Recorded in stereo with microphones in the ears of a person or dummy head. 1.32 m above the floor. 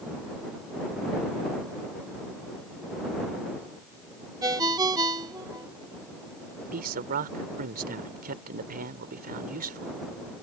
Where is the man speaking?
50° right (ahead or behind).